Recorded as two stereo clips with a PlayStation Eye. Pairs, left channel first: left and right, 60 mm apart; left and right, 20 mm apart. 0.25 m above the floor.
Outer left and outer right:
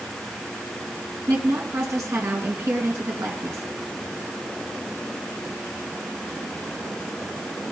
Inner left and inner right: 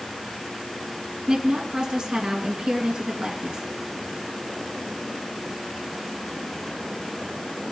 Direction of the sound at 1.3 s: 60° right (ahead or behind).